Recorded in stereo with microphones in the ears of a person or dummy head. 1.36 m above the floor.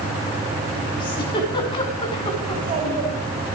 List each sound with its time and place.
1.0 s a giggle: 25° left (ahead or behind), 2.5 m
2.5 s a child speaking: 35° right (ahead or behind), 7.5 m